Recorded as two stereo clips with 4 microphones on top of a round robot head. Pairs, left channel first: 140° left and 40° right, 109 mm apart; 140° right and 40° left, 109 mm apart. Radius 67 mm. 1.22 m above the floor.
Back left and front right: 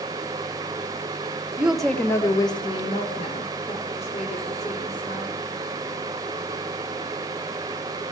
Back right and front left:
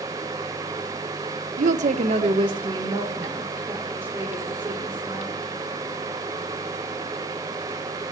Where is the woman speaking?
40° left, 1.0 m; by 5.3 s 120° left, 4 m.